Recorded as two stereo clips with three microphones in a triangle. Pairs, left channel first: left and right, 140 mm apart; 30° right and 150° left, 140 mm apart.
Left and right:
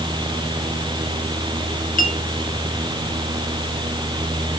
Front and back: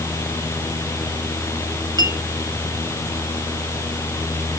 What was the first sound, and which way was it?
A clink, 90° left.